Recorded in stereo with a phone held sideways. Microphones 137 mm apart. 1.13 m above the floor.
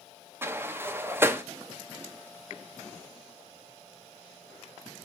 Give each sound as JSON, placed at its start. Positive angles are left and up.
{"t": 0.4, "sound": "a sliding door", "side_deg": -15, "distance_m": 0.5}